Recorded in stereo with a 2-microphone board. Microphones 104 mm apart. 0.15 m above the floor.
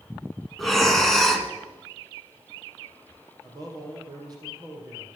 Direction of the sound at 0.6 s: Centre (ahead or behind).